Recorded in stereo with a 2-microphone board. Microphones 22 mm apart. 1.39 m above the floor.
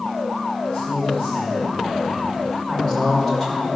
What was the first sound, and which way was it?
A man speaking, 70° left (ahead or behind).